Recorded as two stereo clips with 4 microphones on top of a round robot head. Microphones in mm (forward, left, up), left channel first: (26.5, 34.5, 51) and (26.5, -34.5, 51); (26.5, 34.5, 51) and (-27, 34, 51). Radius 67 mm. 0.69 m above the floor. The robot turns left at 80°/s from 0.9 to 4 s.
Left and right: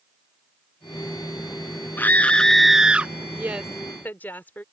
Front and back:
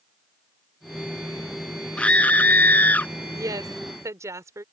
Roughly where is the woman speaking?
Behind right.